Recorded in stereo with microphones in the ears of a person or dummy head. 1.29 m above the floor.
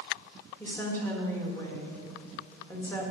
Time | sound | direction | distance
0.6 | a woman speaking | 10° left (ahead or behind) | 1.5 m